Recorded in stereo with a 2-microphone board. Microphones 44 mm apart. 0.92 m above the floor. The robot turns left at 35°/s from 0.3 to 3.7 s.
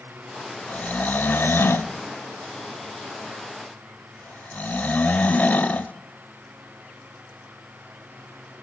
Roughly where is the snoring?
Left.